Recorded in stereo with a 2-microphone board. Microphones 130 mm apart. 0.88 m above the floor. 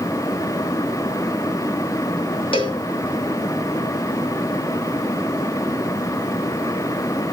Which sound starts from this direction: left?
A cowbell, at 2.5 s.